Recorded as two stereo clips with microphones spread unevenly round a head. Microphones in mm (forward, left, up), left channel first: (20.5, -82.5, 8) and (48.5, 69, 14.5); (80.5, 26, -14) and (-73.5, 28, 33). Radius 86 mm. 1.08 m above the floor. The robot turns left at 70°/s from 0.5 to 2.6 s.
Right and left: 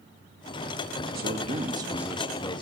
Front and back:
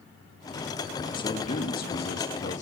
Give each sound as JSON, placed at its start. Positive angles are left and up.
{"t": 1.1, "sound": "a man speaking", "azimuth_deg": 60, "distance_m": 1.7}